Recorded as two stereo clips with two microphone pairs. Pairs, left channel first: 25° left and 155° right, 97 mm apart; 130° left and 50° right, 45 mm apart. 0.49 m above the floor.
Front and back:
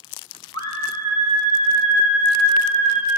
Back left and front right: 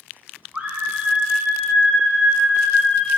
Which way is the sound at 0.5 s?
5° left.